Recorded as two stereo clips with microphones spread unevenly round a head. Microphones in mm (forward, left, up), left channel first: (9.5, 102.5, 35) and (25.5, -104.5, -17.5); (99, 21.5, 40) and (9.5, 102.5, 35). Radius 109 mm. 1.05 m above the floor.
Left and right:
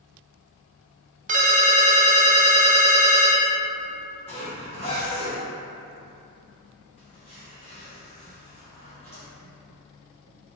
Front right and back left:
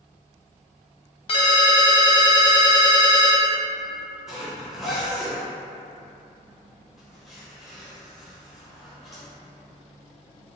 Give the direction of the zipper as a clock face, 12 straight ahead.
10 o'clock.